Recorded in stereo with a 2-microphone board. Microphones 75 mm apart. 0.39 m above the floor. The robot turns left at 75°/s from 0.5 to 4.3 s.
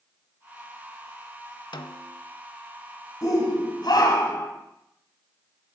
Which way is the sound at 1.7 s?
100° left.